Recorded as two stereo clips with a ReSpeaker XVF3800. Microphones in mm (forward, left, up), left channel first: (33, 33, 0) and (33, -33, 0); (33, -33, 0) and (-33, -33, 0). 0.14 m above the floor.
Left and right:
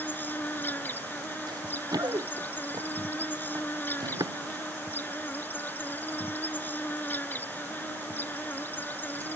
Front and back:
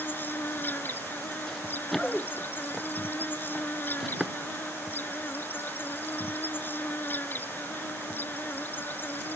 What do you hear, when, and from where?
0.0 s an insect: 40° left
1.5 s running footsteps: 85° right; by 4.3 s 95° right